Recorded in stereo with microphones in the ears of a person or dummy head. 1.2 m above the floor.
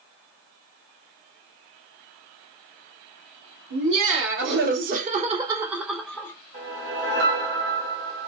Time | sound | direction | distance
3.7 | laughter | 60° right (ahead or behind) | 1.3 m
6.5 | a whoosh | 65° right (ahead or behind) | 2.5 m